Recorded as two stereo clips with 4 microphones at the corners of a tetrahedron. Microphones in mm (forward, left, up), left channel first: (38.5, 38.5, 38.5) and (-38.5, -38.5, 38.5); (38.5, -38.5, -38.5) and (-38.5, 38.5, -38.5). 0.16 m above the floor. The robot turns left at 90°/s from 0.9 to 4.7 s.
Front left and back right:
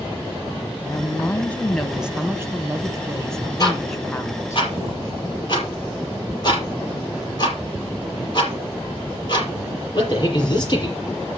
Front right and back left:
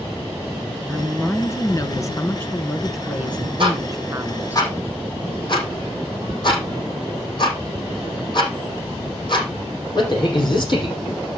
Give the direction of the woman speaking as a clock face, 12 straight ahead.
11 o'clock.